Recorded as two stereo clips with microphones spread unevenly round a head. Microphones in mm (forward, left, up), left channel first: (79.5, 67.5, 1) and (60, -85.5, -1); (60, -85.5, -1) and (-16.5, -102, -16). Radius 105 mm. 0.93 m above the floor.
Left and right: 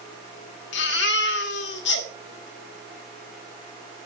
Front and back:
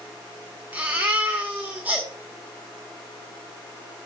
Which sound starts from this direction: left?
A baby crying, at 0.7 s.